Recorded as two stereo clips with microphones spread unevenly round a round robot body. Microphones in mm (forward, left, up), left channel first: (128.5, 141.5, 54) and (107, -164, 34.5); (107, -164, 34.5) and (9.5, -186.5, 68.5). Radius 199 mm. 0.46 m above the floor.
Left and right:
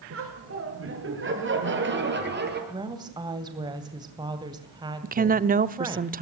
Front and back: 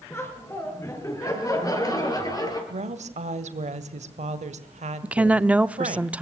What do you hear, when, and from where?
0.1 s laughter: 50° right, 7.5 m; by 2.6 s 35° right, 9 m
2.7 s a woman speaking: 170° right, 2 m
5.0 s a woman speaking: 65° right, 1.1 m